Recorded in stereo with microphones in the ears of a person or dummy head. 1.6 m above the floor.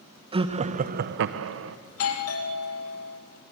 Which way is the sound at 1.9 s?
85° left.